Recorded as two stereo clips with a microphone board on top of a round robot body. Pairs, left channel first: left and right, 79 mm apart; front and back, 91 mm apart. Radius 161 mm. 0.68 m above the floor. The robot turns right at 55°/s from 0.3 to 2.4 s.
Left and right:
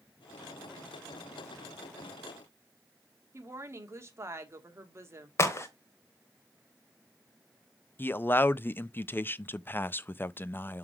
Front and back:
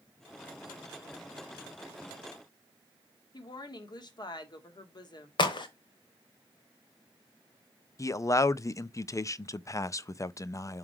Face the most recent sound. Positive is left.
turn(degrees=40)